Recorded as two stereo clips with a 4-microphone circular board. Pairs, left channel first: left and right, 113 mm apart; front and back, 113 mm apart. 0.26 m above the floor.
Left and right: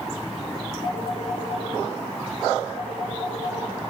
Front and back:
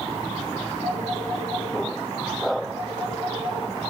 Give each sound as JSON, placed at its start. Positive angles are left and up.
{"t": 0.8, "sound": "a phone ringing", "azimuth_deg": -120, "distance_m": 2.0}